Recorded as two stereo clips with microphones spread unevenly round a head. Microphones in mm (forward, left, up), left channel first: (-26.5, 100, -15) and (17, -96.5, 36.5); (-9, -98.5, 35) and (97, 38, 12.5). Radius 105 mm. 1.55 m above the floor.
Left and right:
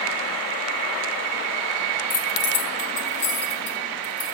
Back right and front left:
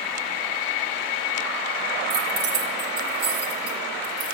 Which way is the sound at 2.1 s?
70° left.